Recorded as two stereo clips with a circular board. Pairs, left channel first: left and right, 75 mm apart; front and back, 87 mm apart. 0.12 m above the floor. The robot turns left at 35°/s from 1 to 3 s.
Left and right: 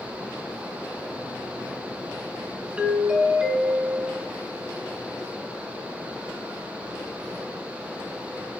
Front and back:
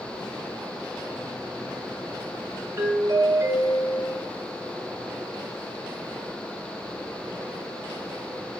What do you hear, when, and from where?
2.8 s a doorbell: 150° right, 1.9 m; by 4.2 s 160° right, 1.9 m